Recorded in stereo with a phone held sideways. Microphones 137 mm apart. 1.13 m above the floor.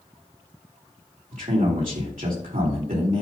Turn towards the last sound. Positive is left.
turn(degrees=-80)